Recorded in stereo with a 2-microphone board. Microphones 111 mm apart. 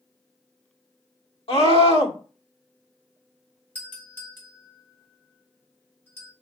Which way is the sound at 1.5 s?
65° left (ahead or behind).